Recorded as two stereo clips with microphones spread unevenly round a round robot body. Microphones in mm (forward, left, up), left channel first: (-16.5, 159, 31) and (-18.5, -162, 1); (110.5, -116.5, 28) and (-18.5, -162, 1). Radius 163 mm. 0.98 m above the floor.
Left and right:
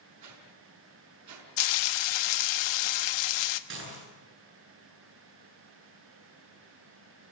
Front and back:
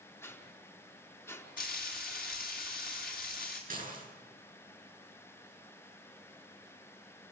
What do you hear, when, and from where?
0.2 s a whoosh: 50° right, 5.5 m
1.6 s frying: 80° left, 1.1 m
3.7 s dishes clattering: 145° right, 8.5 m